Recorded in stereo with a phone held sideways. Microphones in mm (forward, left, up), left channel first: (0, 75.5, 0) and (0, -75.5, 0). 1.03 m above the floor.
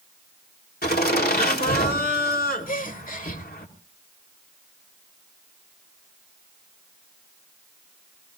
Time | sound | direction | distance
0.8 | laughter | 80° left | 3 m
2.7 | a gasp | 60° left (ahead or behind) | 1.2 m